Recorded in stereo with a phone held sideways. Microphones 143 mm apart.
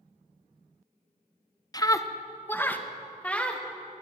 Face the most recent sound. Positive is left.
turn(degrees=5)  # may be behind; listen again after turning